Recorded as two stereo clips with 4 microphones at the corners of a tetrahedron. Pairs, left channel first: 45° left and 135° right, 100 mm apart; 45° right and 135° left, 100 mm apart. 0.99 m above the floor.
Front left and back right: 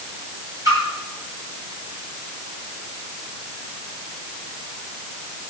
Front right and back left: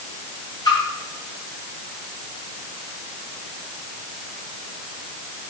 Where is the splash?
85° right, 6.5 m.